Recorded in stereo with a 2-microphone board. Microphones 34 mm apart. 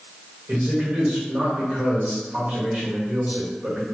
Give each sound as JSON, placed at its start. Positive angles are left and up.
{"t": 0.5, "sound": "a man speaking", "side_deg": -40, "distance_m": 1.4}